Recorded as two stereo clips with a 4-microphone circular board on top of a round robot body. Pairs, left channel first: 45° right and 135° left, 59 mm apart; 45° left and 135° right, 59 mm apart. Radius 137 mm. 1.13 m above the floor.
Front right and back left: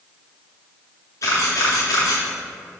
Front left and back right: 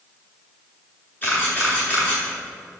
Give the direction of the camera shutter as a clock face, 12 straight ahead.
12 o'clock.